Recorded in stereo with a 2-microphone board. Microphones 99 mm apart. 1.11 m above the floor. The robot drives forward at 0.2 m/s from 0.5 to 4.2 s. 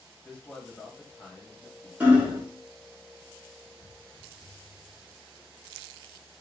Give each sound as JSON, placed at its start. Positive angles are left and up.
{"t": 0.2, "sound": "a man speaking", "side_deg": 15, "distance_m": 1.1}
{"t": 2.0, "sound": "hammering", "side_deg": -15, "distance_m": 0.9}
{"t": 3.8, "sound": "footsteps", "side_deg": 20, "distance_m": 1.6}